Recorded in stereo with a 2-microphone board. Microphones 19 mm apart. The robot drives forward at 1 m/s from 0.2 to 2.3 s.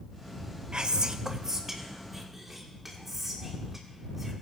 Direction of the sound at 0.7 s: 50° right (ahead or behind).